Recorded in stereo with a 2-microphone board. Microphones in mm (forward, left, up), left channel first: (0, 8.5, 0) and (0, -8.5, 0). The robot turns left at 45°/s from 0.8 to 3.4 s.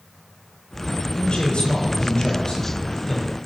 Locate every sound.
1.1 s a man speaking: 110° left, 6.5 m; by 3.3 s 15° left, 6.5 m